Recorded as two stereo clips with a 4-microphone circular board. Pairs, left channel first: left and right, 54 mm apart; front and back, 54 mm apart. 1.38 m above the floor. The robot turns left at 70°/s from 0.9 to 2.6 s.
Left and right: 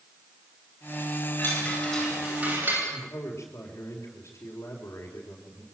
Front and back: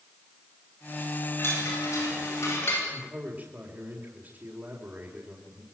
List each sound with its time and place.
1.4 s a chime: 45° left, 9.5 m; by 2.8 s 40° right, 9.5 m
2.9 s a man speaking: 120° left, 4 m